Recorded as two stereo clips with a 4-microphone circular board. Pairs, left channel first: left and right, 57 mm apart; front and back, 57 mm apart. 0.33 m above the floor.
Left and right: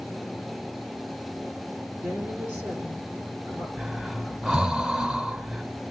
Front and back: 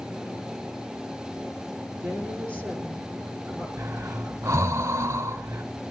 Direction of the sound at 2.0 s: 125° right.